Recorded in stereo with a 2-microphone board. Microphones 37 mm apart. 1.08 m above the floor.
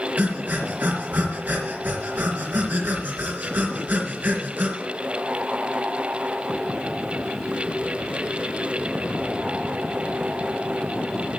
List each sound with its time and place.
0.2 s breathing: 65° right (ahead or behind), 3 m